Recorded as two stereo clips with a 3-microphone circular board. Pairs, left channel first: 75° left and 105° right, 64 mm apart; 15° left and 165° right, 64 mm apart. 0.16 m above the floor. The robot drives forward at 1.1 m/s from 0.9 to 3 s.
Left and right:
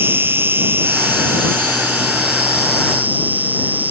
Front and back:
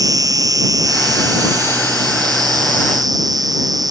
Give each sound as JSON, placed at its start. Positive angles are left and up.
{"t": 0.0, "sound": "an insect", "azimuth_deg": -155}